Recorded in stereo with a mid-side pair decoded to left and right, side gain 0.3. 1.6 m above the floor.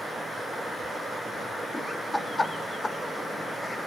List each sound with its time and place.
1.7 s laughter: 25° left, 4 m; by 3.9 s 45° left, 3 m